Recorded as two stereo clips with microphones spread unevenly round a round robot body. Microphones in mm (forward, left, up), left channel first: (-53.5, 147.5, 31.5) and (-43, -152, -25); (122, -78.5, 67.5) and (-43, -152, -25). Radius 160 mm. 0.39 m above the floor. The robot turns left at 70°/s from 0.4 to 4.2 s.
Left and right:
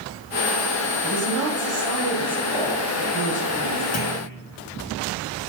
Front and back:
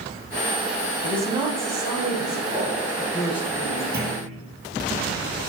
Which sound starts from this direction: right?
A woman speaking, at 1.0 s.